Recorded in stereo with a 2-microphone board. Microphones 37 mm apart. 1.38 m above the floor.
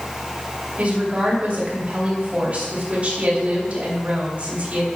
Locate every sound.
0.8 s a woman speaking: 35° right (ahead or behind), 3.5 m